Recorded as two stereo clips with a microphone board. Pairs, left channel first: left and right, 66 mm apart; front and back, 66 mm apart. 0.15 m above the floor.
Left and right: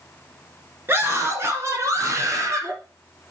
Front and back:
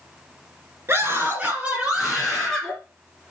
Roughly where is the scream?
Behind right.